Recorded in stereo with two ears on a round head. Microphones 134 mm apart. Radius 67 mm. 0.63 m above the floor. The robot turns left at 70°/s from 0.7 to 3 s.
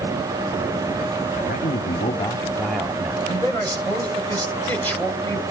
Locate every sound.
1.3 s a man speaking: 105° left, 1.4 m; by 3.2 s 15° right, 1.4 m
3.3 s a man speaking: 15° left (ahead or behind), 2.5 m